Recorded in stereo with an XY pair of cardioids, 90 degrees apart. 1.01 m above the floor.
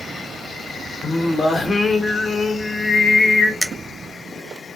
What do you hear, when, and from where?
1.0 s singing: 30° left, 0.7 m
3.6 s a finger snap: 5° right, 0.6 m